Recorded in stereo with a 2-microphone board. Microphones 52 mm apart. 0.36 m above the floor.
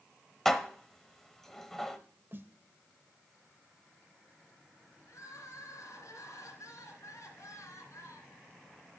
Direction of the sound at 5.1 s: 70° left (ahead or behind).